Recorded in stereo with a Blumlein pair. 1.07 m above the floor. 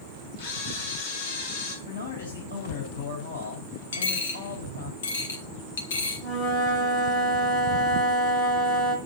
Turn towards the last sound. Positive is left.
turn(degrees=40)